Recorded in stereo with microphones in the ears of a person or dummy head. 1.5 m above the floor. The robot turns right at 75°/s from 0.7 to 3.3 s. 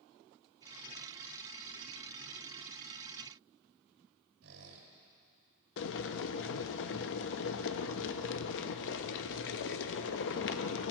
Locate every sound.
4.4 s a squeak: 75° right (ahead or behind), 5.5 m
5.8 s boiling: 65° left (ahead or behind), 0.6 m